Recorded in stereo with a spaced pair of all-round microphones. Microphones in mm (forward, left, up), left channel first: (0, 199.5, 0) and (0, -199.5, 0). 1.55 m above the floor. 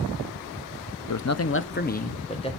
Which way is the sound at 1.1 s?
50° left (ahead or behind).